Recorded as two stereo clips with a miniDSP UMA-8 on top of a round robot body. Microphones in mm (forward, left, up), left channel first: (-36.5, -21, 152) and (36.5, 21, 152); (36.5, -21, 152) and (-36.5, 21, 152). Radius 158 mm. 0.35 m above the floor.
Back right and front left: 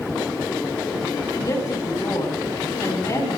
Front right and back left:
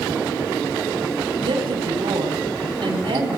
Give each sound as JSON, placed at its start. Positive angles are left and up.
{"t": 1.3, "sound": "a woman speaking", "azimuth_deg": 155, "distance_m": 6.0}